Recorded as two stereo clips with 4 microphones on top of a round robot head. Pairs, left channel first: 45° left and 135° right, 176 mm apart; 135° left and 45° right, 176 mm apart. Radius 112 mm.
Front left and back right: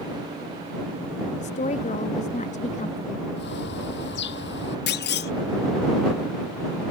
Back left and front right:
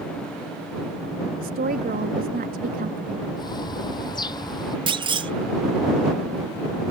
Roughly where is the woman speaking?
Ahead.